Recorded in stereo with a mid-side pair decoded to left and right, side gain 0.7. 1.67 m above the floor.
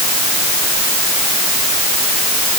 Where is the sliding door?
No sliding door in this recording.